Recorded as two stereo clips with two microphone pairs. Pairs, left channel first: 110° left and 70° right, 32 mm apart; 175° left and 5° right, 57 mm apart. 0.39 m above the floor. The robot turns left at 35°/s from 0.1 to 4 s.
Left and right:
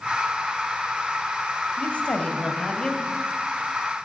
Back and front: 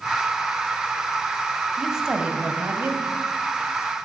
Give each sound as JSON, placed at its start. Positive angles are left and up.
{"t": 1.8, "sound": "a woman speaking", "azimuth_deg": 80, "distance_m": 2.5}